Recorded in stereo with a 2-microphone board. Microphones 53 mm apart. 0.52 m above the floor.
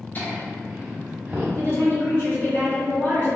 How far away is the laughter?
About 0.8 m.